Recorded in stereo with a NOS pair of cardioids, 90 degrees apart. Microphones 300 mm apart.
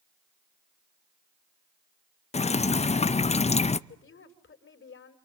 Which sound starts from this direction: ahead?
Dripping, at 2.3 s.